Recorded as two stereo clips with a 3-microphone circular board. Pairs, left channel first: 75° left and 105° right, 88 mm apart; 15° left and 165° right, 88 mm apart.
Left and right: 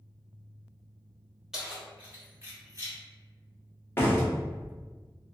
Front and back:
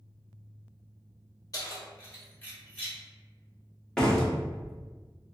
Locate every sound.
1.5 s keys jangling: 20° right, 1.1 m; by 3.0 s 60° right, 1.3 m
4.0 s a door slam: 90° left, 0.7 m